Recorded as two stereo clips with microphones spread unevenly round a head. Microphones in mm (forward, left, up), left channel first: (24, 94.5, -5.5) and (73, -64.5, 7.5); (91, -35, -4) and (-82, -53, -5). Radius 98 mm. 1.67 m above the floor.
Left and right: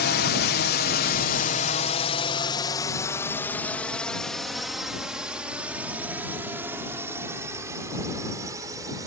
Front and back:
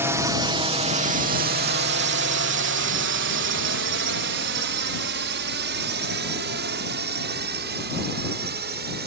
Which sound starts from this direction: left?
A drone, at 0.0 s.